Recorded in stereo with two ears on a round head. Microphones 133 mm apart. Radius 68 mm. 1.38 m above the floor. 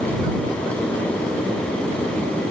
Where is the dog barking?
No dog barking in this recording.